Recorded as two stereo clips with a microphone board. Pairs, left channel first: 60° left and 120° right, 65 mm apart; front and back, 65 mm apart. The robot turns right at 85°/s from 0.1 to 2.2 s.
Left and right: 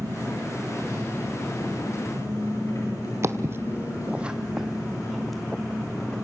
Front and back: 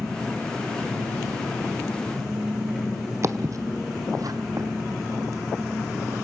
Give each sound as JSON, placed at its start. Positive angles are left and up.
{"t": 0.0, "sound": "an engine running", "azimuth_deg": -85, "distance_m": 10.0}
{"t": 3.2, "sound": "footsteps", "azimuth_deg": -150, "distance_m": 1.0}